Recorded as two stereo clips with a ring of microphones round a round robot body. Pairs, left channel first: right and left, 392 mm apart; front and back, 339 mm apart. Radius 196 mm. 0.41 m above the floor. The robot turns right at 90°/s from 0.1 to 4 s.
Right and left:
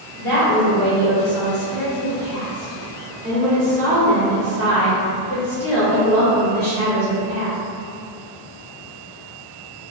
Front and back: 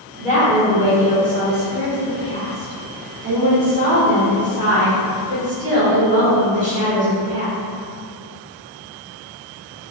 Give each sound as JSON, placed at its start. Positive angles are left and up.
{"t": 0.2, "sound": "a woman speaking", "azimuth_deg": -125, "distance_m": 1.2}